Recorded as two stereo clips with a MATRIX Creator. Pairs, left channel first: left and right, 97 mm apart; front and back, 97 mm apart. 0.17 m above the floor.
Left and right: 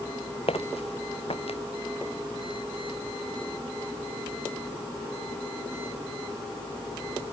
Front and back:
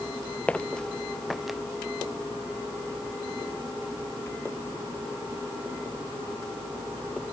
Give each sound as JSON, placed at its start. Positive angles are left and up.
{"t": 0.5, "sound": "footsteps", "azimuth_deg": 75}